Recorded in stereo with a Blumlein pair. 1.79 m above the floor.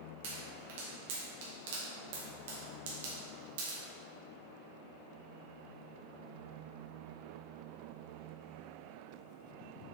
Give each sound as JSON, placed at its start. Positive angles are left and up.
{"t": 0.2, "sound": "a pop", "azimuth_deg": -55, "distance_m": 1.8}